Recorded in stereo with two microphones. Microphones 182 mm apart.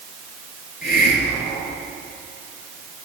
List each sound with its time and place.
0.8 s a hiss: 55° left (ahead or behind), 4.5 m